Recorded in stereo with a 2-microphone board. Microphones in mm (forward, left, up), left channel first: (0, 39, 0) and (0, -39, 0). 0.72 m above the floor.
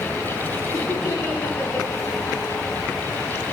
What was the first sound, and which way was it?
Laughter, 30° left (ahead or behind).